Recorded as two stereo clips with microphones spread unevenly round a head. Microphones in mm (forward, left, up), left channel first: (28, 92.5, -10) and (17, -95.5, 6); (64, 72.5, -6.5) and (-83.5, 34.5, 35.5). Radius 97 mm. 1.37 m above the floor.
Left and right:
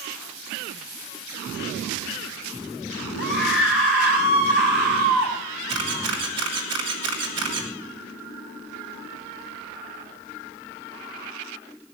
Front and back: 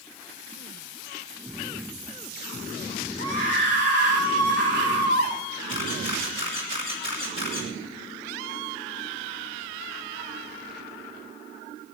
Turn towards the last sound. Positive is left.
turn(degrees=-100)